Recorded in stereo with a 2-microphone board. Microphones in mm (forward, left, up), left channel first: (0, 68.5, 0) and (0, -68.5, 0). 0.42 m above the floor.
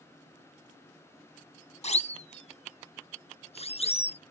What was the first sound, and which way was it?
A siren, 55° left (ahead or behind).